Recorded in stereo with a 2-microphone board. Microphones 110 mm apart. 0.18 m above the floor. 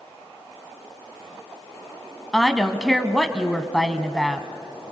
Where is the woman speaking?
Centre (ahead or behind), 1.1 m.